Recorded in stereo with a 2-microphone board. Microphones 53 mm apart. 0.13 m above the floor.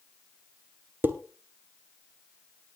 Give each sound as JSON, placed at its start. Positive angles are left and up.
{"t": 1.0, "sound": "dishes clattering", "side_deg": -35, "distance_m": 1.2}